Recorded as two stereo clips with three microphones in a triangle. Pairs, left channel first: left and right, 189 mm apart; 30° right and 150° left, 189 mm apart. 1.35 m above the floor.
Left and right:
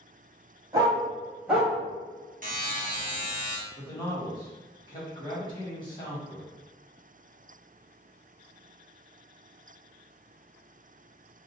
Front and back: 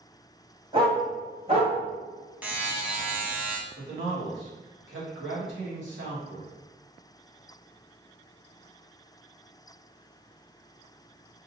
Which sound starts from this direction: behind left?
A man speaking, at 3.8 s.